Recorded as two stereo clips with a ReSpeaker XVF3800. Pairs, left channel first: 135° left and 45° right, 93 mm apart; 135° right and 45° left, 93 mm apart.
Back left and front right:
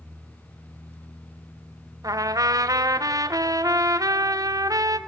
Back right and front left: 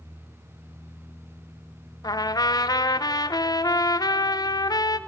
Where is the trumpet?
95° right, 0.6 m.